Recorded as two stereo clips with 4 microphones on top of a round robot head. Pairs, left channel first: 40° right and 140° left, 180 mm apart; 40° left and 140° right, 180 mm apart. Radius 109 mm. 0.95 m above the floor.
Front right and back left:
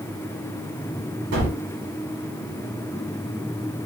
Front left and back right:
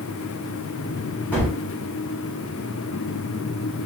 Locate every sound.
1.3 s a gunshot: 120° left, 1.6 m